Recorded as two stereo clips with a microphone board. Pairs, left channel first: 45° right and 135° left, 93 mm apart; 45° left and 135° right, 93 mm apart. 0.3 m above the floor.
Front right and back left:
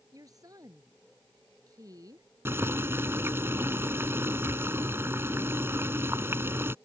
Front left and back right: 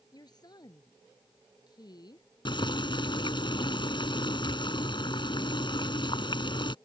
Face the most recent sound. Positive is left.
turn(degrees=70)